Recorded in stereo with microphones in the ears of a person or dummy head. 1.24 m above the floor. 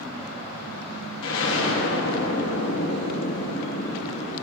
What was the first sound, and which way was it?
An explosion, 65° left (ahead or behind).